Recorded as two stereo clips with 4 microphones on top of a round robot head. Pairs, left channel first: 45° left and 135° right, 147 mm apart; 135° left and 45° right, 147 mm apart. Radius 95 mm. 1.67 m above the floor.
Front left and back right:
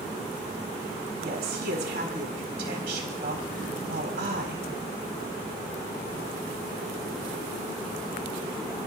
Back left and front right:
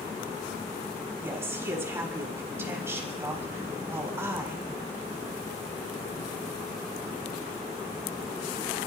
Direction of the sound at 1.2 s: 120° right.